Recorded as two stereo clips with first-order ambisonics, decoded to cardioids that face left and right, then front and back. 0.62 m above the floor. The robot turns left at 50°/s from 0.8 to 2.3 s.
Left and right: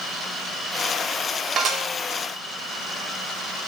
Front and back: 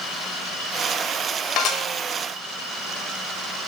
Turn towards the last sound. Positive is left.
turn(degrees=-70)